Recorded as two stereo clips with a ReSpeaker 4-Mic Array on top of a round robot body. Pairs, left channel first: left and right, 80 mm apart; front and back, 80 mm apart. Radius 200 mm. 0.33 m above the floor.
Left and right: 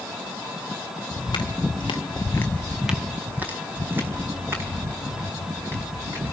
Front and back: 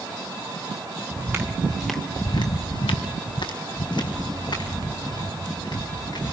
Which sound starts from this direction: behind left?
Footsteps, at 1.1 s.